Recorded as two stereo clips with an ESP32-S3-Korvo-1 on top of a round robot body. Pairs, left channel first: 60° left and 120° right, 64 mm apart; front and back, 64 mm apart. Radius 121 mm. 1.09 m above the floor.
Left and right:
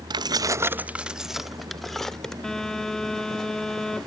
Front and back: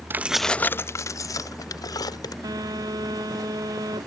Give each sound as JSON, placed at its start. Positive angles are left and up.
{"t": 0.1, "sound": "keys jangling", "azimuth_deg": -120}
{"t": 2.4, "sound": "a phone buzzing", "azimuth_deg": 140}